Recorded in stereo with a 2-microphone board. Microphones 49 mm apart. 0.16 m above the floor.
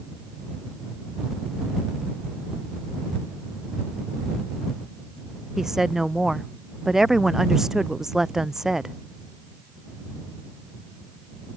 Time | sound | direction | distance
5.6 | a woman speaking | 10° right (ahead or behind) | ?